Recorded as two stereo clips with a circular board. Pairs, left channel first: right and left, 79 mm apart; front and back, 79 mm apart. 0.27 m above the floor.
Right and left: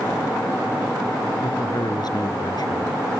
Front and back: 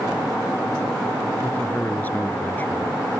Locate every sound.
1.4 s a man speaking: 65° right